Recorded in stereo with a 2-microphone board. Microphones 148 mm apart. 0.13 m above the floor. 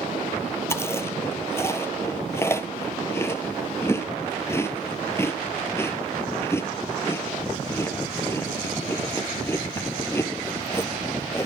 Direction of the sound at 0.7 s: 15° left (ahead or behind).